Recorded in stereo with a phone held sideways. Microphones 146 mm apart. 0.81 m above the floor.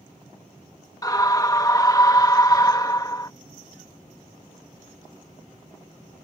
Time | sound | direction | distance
1.0 | a scream | 25° left (ahead or behind) | ?